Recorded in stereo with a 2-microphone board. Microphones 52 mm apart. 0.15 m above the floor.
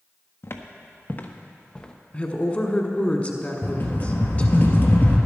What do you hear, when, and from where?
0.4 s footsteps: 55° left (ahead or behind), 1.2 m; by 1.9 s 15° left (ahead or behind), 1.2 m
2.1 s a woman speaking: 25° left (ahead or behind), 1.2 m
3.6 s a rattle: 40° left (ahead or behind), 1.5 m